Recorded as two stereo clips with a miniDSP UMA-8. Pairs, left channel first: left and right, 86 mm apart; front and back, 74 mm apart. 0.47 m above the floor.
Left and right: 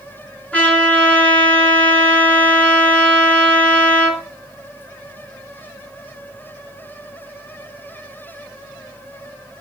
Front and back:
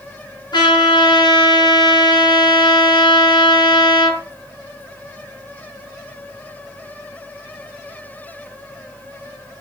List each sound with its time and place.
0.5 s a trumpet: 15° left, 4.5 m